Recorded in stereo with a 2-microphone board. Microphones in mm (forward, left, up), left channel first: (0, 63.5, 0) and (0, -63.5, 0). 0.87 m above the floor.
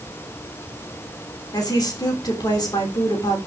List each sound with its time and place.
1.5 s a woman speaking: 35° left (ahead or behind), 3 m